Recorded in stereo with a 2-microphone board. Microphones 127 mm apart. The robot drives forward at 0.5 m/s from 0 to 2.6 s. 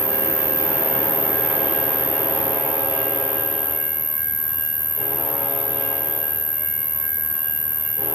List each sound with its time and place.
0.0 s an insect: 20° right (ahead or behind); by 8.2 s 25° right (ahead or behind)